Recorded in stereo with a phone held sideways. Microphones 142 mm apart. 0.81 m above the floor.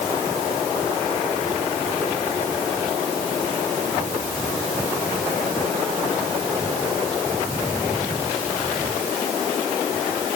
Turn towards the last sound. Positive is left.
No sound to turn to.